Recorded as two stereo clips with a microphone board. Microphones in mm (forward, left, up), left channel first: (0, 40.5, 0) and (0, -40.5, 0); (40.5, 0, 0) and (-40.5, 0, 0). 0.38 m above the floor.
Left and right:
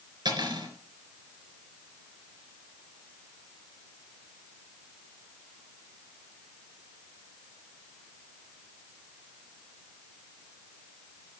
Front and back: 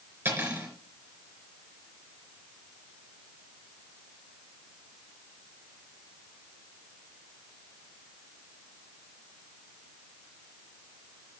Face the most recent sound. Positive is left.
turn(degrees=-120)